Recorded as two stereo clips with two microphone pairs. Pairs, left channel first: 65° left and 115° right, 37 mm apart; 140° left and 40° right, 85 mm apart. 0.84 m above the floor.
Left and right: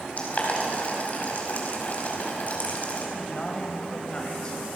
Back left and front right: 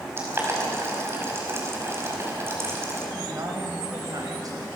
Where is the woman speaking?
Straight ahead, 4.5 m.